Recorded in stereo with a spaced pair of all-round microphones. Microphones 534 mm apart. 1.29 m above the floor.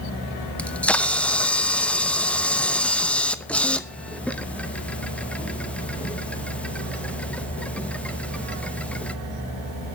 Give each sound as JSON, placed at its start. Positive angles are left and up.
{"t": 0.6, "sound": "a camera shutter", "side_deg": 0, "distance_m": 0.8}